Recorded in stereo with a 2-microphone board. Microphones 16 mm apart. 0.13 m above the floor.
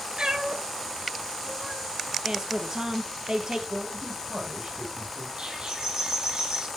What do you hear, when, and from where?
0.2 s a cat meowing: 55° right (ahead or behind), 1.0 m
2.2 s a woman speaking: 45° right (ahead or behind), 2.5 m
3.7 s a man speaking: 40° right (ahead or behind), 5 m
5.4 s a bird: 65° right (ahead or behind), 5 m